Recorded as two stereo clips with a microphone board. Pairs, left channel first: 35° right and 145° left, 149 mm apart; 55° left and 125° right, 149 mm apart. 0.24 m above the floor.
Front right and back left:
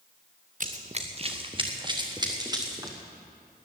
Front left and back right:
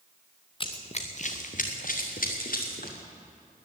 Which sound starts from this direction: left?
Running footsteps, at 0.6 s.